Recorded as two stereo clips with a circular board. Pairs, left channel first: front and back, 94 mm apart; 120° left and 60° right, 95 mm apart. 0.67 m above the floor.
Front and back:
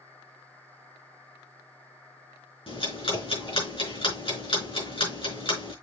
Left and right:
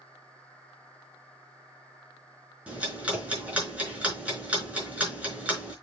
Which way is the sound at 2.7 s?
20° left.